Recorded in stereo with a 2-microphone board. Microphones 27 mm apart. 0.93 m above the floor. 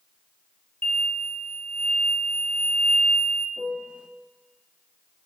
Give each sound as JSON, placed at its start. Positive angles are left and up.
{"t": 0.8, "sound": "an explosion", "side_deg": 70, "distance_m": 2.0}
{"t": 3.6, "sound": "a piano", "side_deg": -40, "distance_m": 1.2}